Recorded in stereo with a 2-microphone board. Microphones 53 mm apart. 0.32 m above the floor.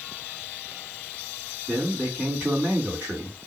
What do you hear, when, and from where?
1.7 s a man speaking: 30° right (ahead or behind), 2 m